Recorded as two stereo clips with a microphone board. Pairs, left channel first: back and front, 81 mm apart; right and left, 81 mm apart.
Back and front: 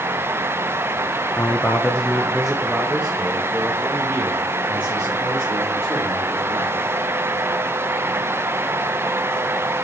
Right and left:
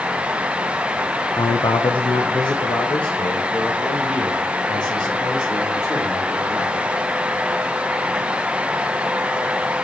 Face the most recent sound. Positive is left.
turn(degrees=-55)